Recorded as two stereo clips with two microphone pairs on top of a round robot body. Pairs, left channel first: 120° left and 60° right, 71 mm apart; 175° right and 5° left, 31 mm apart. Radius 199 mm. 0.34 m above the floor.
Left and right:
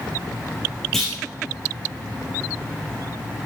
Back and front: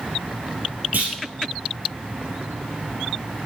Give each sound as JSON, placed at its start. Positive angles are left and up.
{"t": 0.9, "sound": "a clunk", "azimuth_deg": 35, "distance_m": 3.0}